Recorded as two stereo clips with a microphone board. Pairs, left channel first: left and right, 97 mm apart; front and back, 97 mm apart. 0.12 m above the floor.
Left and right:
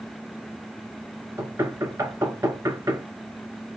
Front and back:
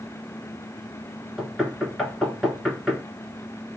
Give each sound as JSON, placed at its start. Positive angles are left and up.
{"t": 1.4, "sound": "knocking", "azimuth_deg": -95, "distance_m": 1.5}